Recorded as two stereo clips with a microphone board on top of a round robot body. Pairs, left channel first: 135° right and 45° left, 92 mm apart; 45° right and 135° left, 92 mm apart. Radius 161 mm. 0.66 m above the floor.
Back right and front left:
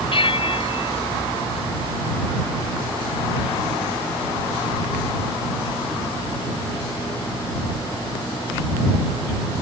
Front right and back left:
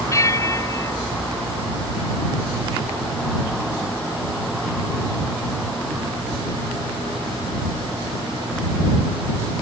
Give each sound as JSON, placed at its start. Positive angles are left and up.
{"t": 0.1, "sound": "a bell", "azimuth_deg": -105}